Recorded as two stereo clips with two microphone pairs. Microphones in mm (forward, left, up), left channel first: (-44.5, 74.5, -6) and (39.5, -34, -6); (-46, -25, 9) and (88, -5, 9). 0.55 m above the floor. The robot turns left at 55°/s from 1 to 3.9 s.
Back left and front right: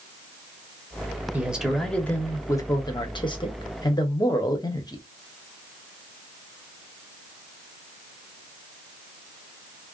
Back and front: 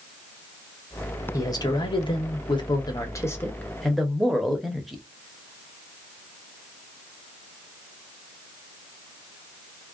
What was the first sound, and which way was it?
A man speaking, 120° right.